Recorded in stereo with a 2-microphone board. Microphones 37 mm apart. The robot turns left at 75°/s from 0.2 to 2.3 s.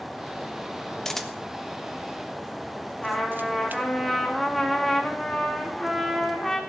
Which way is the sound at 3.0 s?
5° left (ahead or behind).